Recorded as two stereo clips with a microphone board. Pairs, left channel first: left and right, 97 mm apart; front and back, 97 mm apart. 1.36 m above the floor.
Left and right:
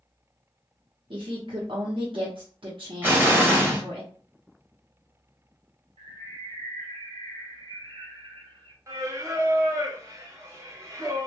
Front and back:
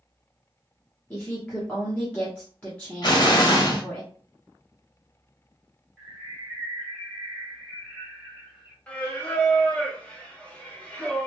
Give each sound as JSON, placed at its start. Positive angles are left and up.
{"t": 1.1, "sound": "a woman speaking", "azimuth_deg": -75, "distance_m": 0.7}
{"t": 3.0, "sound": "an explosion", "azimuth_deg": -25, "distance_m": 0.8}
{"t": 6.0, "sound": "a bird", "azimuth_deg": -90, "distance_m": 0.9}
{"t": 8.9, "sound": "singing", "azimuth_deg": -65, "distance_m": 0.6}